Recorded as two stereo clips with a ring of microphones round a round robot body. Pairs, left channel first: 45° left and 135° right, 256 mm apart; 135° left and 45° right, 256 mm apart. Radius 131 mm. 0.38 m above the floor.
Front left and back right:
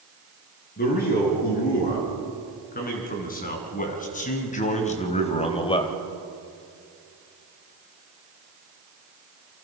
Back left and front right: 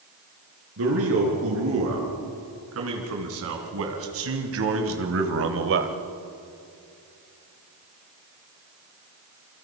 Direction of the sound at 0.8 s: 10° right.